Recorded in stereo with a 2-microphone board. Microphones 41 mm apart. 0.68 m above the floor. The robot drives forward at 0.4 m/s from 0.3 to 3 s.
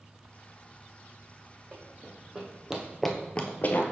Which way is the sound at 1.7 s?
30° right (ahead or behind).